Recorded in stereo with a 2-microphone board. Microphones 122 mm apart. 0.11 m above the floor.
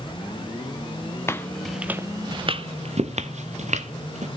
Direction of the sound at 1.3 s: 20° left (ahead or behind).